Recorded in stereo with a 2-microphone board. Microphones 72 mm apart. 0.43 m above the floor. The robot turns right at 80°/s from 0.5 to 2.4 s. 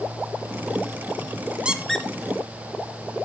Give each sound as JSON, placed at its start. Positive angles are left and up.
{"t": 1.6, "sound": "a squeak", "side_deg": -15, "distance_m": 0.9}